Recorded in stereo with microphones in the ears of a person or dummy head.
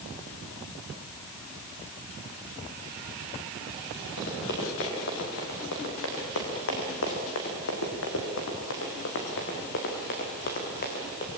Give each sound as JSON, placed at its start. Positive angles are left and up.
{"t": 4.2, "sound": "running footsteps", "side_deg": 55, "distance_m": 7.0}